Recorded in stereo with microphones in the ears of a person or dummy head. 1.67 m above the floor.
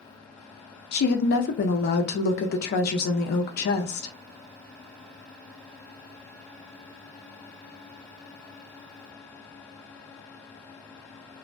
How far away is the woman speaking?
About 0.5 m.